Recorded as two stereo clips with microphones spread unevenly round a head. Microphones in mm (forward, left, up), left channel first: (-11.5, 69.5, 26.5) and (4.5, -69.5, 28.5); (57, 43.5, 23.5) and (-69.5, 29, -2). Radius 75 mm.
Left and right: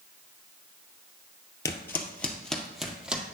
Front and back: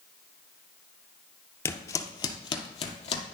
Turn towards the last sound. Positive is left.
turn(degrees=0)